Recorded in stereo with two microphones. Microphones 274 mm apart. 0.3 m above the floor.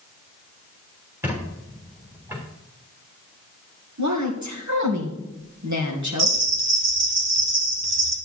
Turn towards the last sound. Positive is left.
turn(degrees=-65)  # may be behind; listen again after turning